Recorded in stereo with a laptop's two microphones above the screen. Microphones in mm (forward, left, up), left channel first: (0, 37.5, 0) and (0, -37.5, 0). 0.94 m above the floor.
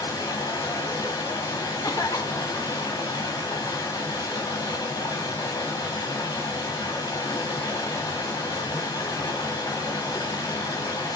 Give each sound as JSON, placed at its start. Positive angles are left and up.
{"t": 0.0, "sound": "running water", "side_deg": 65, "distance_m": 3.0}
{"t": 1.8, "sound": "a cough", "side_deg": 55, "distance_m": 1.4}